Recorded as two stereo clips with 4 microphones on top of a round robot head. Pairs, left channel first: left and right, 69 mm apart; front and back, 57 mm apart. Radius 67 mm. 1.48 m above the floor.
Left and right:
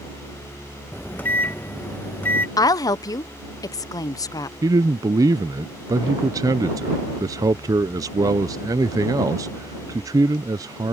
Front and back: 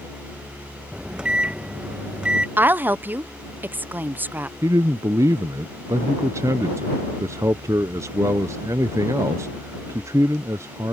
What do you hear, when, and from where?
0.9 s a microwave: 125° left
2.6 s a woman speaking: 120° left
4.6 s a man speaking: 130° right